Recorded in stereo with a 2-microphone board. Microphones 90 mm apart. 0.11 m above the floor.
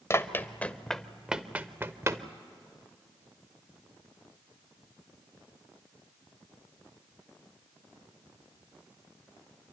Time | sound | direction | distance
0.1 | running footsteps | 30° left (ahead or behind) | 1.1 m